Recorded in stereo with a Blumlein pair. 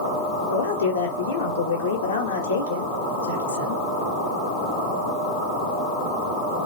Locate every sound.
0.5 s a man speaking: 70° left, 1.0 m